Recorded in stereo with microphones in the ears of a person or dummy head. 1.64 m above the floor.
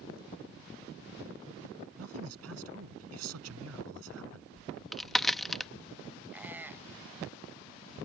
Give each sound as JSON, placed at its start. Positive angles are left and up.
{"t": 2.0, "sound": "a man speaking", "side_deg": -90}
{"t": 4.6, "sound": "a crack", "side_deg": 5}
{"t": 6.3, "sound": "a squeak", "side_deg": -5}